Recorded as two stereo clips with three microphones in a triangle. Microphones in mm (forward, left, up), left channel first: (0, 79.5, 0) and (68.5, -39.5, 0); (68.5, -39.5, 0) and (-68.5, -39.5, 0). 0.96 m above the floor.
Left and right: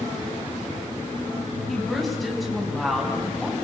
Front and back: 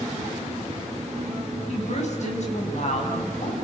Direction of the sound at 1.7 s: 30° left.